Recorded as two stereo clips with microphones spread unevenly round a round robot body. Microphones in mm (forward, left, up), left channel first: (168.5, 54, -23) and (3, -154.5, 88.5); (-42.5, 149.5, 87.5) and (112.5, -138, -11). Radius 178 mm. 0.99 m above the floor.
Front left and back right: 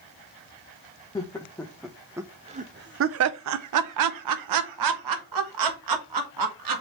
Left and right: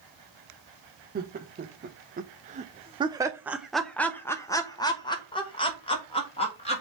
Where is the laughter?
10° right, 1.1 m; by 6.8 s 165° right, 2.0 m.